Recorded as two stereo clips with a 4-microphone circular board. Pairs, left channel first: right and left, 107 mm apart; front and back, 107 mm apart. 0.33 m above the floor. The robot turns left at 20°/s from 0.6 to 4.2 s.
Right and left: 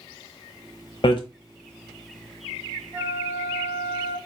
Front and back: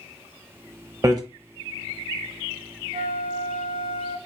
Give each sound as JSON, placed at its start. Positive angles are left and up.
{"t": 1.0, "sound": "hammering", "azimuth_deg": -125, "distance_m": 1.0}
{"t": 2.9, "sound": "a flute", "azimuth_deg": 165, "distance_m": 1.1}